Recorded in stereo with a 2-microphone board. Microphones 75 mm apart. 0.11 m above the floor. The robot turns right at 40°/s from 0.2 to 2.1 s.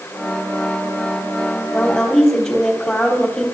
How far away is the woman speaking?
About 3.5 m.